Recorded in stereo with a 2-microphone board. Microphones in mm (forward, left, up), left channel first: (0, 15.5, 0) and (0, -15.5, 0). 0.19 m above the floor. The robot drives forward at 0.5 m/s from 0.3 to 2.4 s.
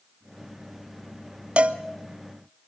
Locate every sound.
1.6 s a cowbell: 45° right (ahead or behind), 0.7 m